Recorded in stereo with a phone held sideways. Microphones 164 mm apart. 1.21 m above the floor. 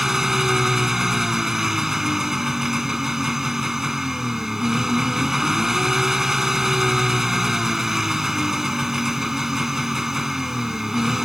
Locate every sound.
0.0 s an engine running: 5° right (ahead or behind)